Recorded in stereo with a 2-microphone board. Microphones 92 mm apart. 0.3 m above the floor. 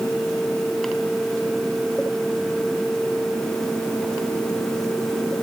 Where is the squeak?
I don't hear a squeak.